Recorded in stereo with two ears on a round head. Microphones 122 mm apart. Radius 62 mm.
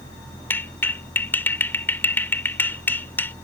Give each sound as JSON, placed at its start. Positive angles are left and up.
{"t": 0.5, "sound": "a clap", "side_deg": 15}